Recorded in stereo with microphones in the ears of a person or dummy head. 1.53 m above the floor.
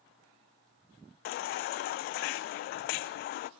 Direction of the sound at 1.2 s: 50° left (ahead or behind).